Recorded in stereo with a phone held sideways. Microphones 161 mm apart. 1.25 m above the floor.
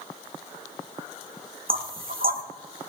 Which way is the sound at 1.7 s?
70° right (ahead or behind).